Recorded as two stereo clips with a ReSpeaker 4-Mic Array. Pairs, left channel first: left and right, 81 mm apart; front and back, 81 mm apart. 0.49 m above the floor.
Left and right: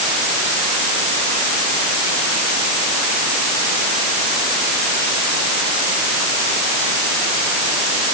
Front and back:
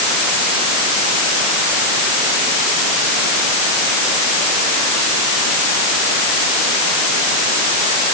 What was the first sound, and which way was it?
Only background noise.